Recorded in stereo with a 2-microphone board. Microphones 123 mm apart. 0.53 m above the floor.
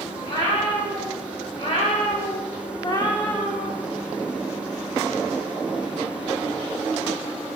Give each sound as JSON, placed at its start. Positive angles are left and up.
{"t": 0.2, "sound": "a cat meowing", "side_deg": 40, "distance_m": 1.7}